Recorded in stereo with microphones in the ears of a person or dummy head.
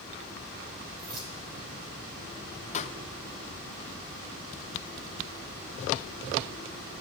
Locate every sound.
1.0 s keys jangling: 30° right (ahead or behind), 5 m
2.7 s a pop: 40° left (ahead or behind), 0.7 m